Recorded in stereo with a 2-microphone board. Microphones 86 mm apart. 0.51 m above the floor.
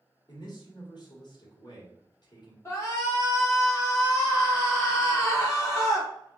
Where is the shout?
30° left (ahead or behind), 1.5 m.